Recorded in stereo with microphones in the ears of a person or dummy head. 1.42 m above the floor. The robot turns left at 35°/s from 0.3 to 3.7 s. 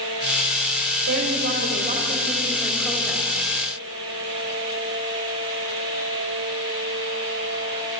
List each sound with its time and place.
1.1 s a woman speaking: 110° right, 7 m; by 3.3 s 175° left, 7 m